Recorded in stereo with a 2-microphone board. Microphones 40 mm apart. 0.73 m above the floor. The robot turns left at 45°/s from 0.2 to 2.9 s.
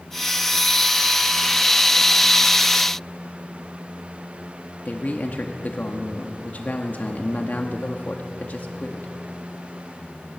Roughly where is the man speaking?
Left.